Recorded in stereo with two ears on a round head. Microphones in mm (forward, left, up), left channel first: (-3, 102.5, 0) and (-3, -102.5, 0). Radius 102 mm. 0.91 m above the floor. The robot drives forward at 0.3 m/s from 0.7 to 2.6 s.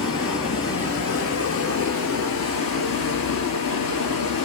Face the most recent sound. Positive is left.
turn(degrees=65)  # may be behind; listen again after turning